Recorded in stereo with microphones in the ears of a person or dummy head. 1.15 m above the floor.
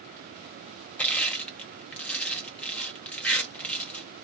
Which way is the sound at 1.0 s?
5° left (ahead or behind).